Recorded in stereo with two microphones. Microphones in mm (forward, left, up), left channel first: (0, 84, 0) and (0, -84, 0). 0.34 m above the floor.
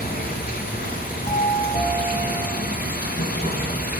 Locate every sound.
0.0 s running water: 60° left (ahead or behind), 2 m
1.3 s a doorbell: 40° left (ahead or behind), 3 m